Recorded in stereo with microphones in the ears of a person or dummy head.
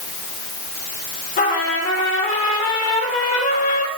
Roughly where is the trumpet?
Left.